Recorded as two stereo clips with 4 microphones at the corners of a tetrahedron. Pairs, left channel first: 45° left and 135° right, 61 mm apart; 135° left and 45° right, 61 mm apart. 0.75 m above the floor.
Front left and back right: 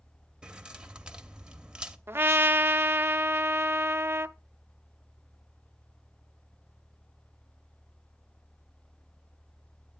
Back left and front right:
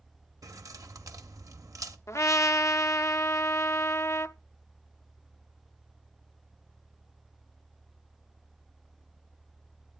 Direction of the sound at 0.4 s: 60° right.